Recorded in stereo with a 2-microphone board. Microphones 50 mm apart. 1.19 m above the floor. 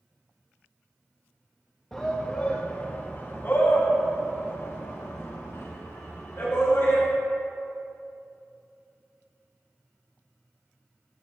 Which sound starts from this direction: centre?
A shout, at 1.9 s.